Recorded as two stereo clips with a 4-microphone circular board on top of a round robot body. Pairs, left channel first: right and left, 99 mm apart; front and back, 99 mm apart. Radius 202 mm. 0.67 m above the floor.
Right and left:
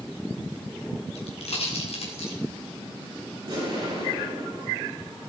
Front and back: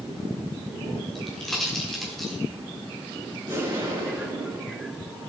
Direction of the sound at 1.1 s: 85° right.